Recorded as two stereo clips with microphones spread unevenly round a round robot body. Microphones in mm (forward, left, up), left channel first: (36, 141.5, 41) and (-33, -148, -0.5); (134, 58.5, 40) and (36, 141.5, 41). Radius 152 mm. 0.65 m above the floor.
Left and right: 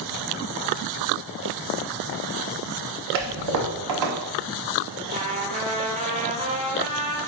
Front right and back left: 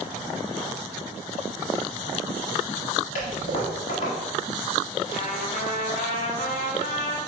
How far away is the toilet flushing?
About 0.7 m.